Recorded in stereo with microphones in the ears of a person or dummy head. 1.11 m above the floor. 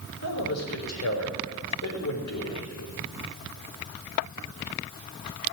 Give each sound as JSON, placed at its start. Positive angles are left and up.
{"t": 0.2, "sound": "a man speaking", "side_deg": 85, "distance_m": 4.0}